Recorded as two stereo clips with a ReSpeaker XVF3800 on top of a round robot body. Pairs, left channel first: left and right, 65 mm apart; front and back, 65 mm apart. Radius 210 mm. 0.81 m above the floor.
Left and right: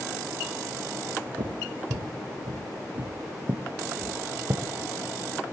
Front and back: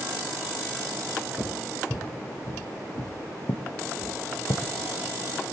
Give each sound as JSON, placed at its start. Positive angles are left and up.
{"t": 1.4, "sound": "footsteps", "azimuth_deg": -75, "distance_m": 1.4}